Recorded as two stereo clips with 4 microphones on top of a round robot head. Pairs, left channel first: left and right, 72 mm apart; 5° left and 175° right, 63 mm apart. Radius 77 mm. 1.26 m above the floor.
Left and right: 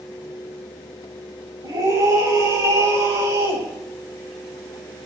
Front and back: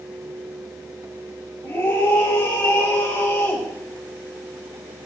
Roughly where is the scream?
Ahead right.